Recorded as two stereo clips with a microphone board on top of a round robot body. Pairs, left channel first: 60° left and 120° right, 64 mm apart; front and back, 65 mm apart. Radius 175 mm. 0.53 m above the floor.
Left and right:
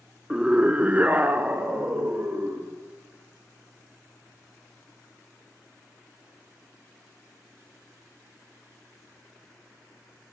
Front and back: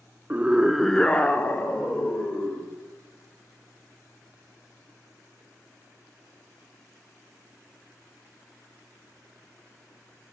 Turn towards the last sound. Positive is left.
turn(degrees=-50)